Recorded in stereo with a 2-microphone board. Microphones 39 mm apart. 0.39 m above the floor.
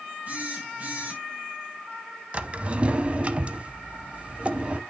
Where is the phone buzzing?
40° right (ahead or behind), 2.5 m.